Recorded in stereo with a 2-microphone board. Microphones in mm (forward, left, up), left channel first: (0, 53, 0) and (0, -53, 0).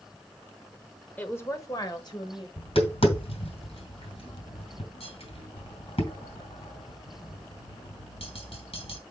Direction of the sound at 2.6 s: 65° left (ahead or behind).